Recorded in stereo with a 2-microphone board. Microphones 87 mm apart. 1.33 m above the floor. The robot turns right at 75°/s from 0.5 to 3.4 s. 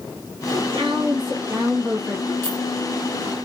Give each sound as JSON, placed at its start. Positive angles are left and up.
{"t": 0.5, "sound": "a woman speaking", "azimuth_deg": -120, "distance_m": 1.6}
{"t": 2.4, "sound": "a clink", "side_deg": 25, "distance_m": 1.4}